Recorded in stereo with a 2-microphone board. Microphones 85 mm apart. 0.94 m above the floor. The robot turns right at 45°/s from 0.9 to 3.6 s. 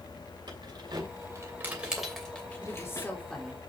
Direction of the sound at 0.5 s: 55° right (ahead or behind).